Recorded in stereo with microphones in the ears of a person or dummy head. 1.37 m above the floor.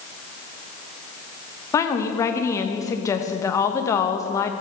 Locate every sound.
1.7 s a woman speaking: 20° left (ahead or behind), 1.1 m